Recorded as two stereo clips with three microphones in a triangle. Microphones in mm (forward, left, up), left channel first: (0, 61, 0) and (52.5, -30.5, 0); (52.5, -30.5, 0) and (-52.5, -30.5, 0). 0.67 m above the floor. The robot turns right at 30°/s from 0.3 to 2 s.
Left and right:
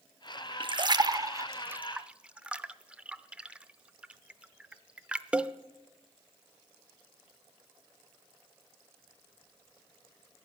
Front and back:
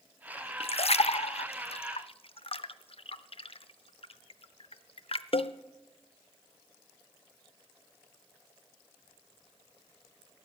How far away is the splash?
About 0.5 m.